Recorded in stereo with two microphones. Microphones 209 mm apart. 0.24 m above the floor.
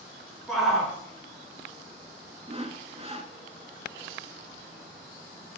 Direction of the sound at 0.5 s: Centre (ahead or behind).